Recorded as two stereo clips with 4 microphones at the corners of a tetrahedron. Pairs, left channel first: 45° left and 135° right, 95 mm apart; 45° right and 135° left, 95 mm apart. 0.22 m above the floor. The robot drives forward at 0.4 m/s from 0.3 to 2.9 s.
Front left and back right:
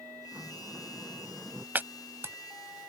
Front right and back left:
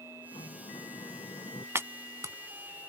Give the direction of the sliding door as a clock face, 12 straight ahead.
2 o'clock.